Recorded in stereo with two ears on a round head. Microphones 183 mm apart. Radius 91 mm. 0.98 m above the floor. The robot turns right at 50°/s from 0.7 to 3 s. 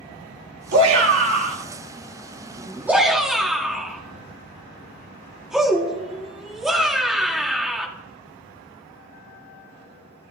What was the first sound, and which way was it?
A shout, 60° right (ahead or behind).